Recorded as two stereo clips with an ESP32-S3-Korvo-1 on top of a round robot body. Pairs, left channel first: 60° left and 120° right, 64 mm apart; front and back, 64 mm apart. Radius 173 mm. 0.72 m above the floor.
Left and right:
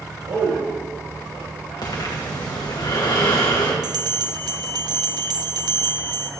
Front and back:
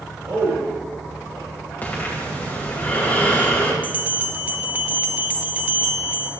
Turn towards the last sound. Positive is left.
turn(degrees=-115)